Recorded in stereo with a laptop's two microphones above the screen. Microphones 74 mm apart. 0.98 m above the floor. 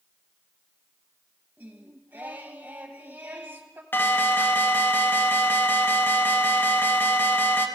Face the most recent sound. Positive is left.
turn(degrees=30)  # may be behind; listen again after turning